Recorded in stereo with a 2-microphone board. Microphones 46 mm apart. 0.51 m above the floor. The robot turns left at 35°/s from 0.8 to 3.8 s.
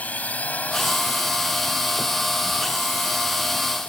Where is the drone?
145° left; by 3.9 s 40° left.